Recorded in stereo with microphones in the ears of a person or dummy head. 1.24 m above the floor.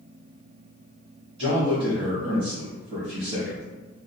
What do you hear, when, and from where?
1.4 s a man speaking: 25° right (ahead or behind), 1.1 m